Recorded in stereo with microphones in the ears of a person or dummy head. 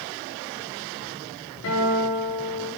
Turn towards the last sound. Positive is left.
turn(degrees=80)